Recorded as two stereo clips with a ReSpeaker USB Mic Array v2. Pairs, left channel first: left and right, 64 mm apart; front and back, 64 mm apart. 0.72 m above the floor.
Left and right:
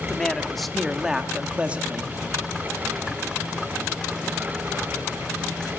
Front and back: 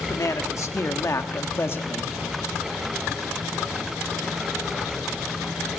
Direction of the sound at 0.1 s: 15° left.